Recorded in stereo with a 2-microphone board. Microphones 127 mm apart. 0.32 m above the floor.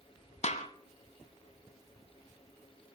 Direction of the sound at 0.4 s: 60° left (ahead or behind).